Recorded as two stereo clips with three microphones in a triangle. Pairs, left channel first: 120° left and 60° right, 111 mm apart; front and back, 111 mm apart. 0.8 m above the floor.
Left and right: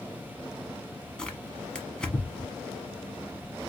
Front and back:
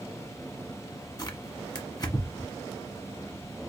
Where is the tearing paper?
40° left, 1.0 m.